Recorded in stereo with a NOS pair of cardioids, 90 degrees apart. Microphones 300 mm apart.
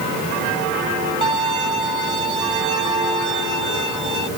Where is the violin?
15° right.